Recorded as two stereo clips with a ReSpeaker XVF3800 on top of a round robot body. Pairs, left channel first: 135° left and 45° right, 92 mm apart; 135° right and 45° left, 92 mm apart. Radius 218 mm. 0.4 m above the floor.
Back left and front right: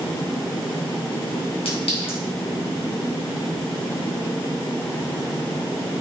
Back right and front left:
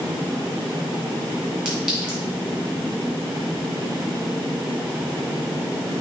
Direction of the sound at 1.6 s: 125° left.